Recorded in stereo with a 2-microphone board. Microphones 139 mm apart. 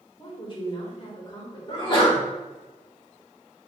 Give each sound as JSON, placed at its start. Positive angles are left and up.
{"t": 0.2, "sound": "a woman speaking", "side_deg": 35, "distance_m": 1.4}
{"t": 1.7, "sound": "a sneeze", "side_deg": 35, "distance_m": 1.5}